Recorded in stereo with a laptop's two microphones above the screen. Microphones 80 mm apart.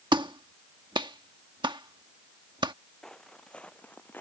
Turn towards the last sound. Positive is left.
turn(degrees=25)  # may be behind; listen again after turning